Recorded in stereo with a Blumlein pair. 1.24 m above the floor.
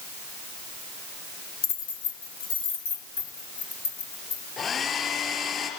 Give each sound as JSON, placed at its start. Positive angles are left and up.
{"t": 1.6, "sound": "keys jangling", "azimuth_deg": 45, "distance_m": 1.3}
{"t": 4.6, "sound": "a hair dryer", "azimuth_deg": 25, "distance_m": 4.5}